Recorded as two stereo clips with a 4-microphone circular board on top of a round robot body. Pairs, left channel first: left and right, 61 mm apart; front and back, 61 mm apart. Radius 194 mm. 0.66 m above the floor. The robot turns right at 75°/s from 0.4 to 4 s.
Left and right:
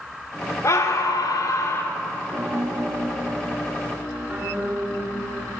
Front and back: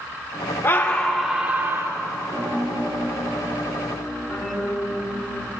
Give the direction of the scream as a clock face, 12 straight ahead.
10 o'clock.